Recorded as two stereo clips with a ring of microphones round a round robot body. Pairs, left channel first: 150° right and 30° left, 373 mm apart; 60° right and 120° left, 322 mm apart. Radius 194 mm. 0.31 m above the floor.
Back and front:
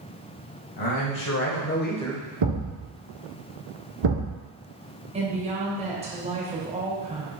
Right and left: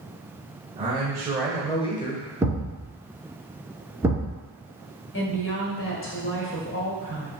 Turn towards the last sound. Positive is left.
turn(degrees=-35)